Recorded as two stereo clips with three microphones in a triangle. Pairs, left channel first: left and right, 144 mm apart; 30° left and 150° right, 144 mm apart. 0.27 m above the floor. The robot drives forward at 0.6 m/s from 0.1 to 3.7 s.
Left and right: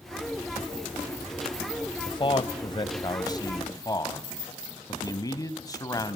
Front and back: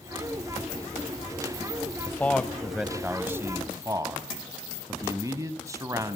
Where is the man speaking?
90° left, 1.1 m; by 6.2 s 150° left, 1.5 m.